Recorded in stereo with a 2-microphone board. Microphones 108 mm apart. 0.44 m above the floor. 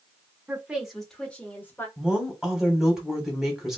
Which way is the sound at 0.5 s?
15° right (ahead or behind).